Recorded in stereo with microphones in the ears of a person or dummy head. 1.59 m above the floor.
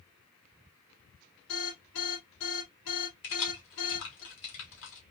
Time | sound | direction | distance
1.5 | an alarm | 85° left | 1.8 m
3.2 | keys jangling | 75° left (ahead or behind) | 1.7 m